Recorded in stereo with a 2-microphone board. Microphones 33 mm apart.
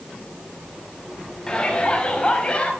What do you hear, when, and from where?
1.5 s a shout: 20° left (ahead or behind), 5 m; by 2.7 s 30° left (ahead or behind), 4.5 m